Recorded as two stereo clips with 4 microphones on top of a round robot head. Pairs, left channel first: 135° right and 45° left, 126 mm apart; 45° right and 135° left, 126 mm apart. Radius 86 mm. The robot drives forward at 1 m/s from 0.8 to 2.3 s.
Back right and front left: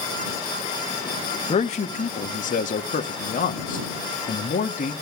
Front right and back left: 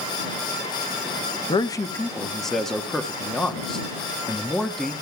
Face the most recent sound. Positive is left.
turn(degrees=-135)